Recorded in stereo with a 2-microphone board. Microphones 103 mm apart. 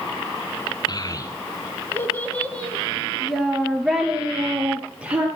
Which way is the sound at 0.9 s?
40° left (ahead or behind).